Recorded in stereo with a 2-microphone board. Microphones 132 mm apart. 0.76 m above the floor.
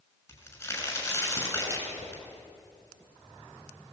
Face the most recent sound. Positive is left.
turn(degrees=20)  # may be behind; listen again after turning